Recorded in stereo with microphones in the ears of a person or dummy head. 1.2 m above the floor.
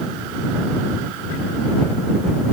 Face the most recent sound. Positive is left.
No sound to turn to.